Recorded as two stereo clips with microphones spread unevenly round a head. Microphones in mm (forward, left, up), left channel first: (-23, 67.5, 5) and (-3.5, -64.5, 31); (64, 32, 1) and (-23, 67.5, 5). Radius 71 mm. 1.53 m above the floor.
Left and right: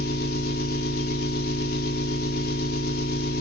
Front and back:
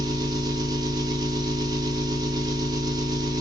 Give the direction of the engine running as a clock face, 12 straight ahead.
8 o'clock.